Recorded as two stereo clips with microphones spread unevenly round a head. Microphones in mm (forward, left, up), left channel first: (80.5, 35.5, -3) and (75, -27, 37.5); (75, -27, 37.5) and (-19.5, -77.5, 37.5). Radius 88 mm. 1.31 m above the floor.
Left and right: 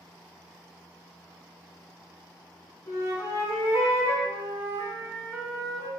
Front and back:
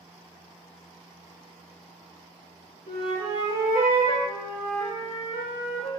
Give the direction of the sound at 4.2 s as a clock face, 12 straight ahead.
12 o'clock.